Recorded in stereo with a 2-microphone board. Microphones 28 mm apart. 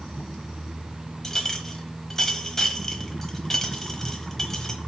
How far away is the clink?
About 1.1 m.